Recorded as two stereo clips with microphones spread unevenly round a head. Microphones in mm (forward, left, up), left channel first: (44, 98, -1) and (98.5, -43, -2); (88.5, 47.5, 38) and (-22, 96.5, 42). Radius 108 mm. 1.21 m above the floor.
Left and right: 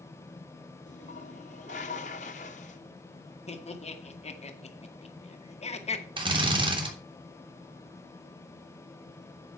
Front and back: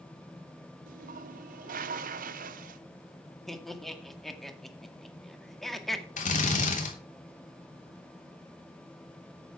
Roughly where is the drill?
Ahead.